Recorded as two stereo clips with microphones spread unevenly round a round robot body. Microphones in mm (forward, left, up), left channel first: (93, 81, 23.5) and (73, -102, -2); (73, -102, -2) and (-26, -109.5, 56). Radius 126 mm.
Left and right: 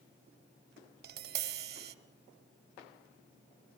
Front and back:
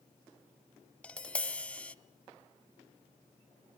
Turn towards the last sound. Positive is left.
turn(degrees=-110)